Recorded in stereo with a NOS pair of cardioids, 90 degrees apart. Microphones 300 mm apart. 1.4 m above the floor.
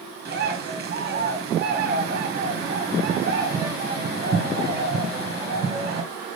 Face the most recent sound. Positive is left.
turn(degrees=-35)